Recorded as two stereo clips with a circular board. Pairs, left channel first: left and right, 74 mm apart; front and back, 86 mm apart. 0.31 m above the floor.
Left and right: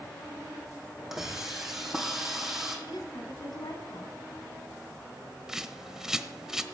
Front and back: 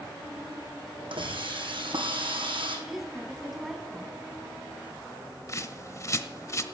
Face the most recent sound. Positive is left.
turn(degrees=-10)